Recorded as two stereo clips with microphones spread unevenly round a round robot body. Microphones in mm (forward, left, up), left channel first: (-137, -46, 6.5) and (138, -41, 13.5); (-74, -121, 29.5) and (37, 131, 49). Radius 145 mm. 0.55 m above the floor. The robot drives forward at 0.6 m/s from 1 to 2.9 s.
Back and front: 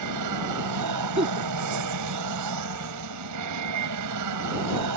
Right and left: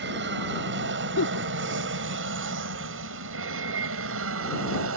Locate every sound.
0.0 s an aircraft: 15° left; by 5.0 s 25° left
1.2 s a giggle: 65° right; by 1.5 s 75° right